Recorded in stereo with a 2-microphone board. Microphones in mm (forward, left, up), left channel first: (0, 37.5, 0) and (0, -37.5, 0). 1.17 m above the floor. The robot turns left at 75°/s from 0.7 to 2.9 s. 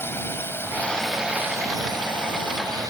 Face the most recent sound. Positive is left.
turn(degrees=-135)